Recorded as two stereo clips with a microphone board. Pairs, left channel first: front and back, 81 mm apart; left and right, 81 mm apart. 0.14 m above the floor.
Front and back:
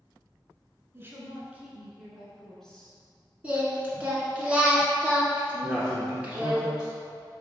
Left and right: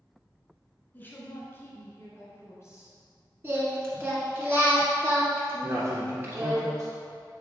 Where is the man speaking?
95° right, 1.8 m.